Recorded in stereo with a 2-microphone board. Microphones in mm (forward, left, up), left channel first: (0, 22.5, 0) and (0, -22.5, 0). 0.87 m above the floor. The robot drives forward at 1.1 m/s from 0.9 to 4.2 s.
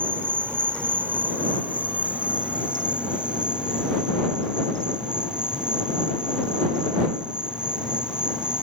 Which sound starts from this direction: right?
An insect, at 0.0 s.